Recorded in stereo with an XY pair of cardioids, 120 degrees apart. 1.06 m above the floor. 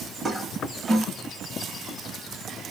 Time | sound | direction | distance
0.2 | a toilet flushing | 25° right | 1.5 m